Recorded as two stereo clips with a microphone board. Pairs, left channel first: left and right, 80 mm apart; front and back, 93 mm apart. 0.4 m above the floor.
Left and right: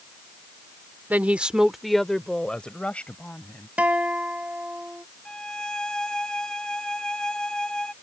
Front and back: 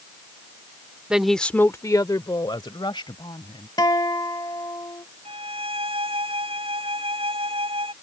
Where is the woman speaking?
115° right; by 3.7 s 20° left.